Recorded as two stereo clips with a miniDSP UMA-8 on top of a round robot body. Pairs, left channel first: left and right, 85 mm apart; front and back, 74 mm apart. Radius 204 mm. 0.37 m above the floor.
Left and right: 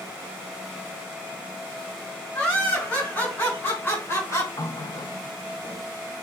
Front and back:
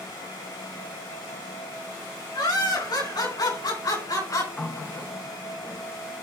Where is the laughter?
10° left, 7 m; by 4.5 s 35° left, 4.5 m.